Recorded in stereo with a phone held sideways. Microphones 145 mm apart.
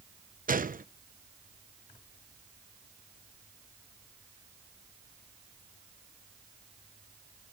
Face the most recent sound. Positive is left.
turn(degrees=-75)  # may be behind; listen again after turning